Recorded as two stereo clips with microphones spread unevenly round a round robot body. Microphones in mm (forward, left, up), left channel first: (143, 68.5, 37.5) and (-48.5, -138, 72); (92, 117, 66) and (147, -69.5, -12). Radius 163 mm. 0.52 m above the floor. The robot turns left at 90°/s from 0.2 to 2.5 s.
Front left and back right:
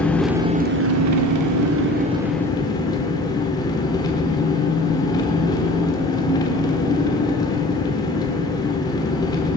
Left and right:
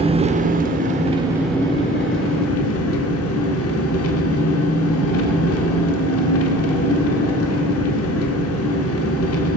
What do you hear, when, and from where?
0.0 s an engine running: 35° right, 1.0 m; by 9.6 s 120° left, 1.0 m